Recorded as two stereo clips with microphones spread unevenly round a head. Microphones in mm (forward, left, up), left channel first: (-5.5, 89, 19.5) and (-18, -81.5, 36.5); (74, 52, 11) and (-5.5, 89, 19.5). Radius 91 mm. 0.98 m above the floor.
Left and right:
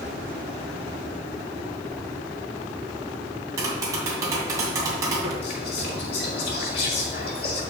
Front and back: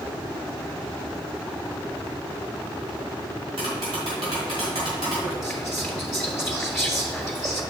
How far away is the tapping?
About 2.5 m.